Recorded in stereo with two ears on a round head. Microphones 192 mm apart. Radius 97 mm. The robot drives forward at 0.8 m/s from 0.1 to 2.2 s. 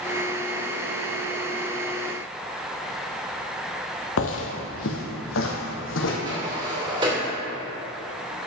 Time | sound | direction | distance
4.2 | footsteps | 65° left (ahead or behind) | 1.3 m
6.2 | a sliding door | 20° right (ahead or behind) | 2.5 m